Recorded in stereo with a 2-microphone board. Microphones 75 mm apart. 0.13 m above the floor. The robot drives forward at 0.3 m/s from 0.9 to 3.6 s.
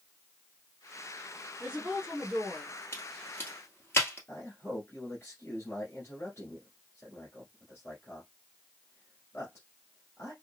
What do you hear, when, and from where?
1.6 s a woman speaking: 10° right (ahead or behind), 1.2 m
2.9 s a crack: 35° left (ahead or behind), 1.4 m; by 4.2 s 30° left (ahead or behind), 1.6 m
4.3 s a man speaking: 35° left (ahead or behind), 1.6 m